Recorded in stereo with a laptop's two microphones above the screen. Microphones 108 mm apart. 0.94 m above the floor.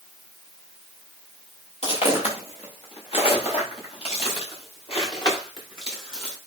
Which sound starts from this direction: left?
Footsteps, at 1.8 s.